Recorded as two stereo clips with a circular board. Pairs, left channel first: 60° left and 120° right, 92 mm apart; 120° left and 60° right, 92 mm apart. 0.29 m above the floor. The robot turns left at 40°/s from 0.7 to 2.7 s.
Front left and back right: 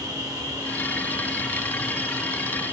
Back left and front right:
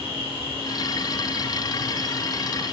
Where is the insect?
120° left, 7.5 m; by 2.7 s 40° left, 7.5 m.